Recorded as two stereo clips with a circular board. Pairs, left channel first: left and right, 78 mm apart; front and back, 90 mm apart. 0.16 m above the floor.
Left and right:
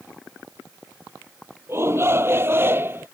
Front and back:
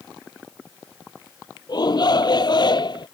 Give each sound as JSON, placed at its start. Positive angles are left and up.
{"t": 1.7, "sound": "a shout", "azimuth_deg": -35}